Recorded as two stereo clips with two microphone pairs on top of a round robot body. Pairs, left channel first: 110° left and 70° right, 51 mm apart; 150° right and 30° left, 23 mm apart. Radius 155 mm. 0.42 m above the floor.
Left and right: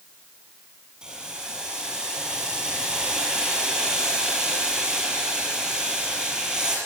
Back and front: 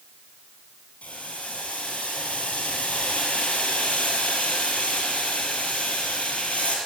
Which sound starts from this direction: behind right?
Boiling, at 1.0 s.